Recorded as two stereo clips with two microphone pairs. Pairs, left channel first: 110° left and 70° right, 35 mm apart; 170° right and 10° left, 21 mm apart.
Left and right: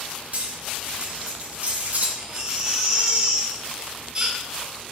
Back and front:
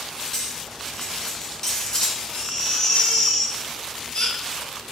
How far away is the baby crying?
About 2.5 m.